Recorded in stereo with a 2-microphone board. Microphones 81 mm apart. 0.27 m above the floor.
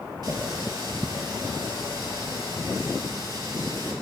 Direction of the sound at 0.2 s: 60° right (ahead or behind).